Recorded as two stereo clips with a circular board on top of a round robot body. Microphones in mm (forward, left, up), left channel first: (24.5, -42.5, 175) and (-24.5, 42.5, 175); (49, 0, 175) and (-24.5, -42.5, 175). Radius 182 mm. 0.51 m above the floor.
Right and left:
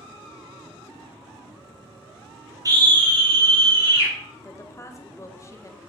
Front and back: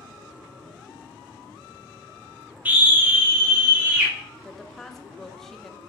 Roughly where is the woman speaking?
Ahead right.